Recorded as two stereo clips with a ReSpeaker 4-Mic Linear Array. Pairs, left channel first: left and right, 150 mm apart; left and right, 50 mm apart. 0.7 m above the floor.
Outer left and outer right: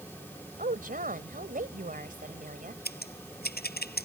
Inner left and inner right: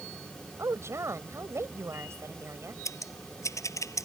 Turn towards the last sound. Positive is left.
turn(degrees=90)